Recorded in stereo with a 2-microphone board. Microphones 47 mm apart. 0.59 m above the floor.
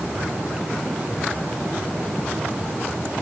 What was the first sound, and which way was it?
Only background noise.